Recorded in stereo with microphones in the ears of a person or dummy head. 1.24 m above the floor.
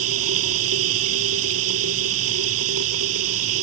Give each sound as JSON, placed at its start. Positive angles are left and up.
{"t": 0.0, "sound": "running water", "side_deg": -80}